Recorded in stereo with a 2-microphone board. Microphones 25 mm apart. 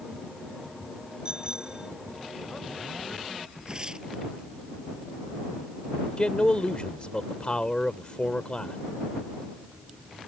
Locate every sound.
1.2 s a bicycle bell: 25° right (ahead or behind)
3.7 s tearing paper: 30° right (ahead or behind)
6.2 s a man speaking: 40° left (ahead or behind)